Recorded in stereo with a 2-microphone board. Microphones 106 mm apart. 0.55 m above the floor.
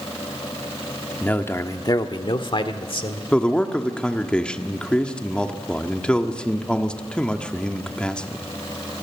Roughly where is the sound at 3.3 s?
Centre.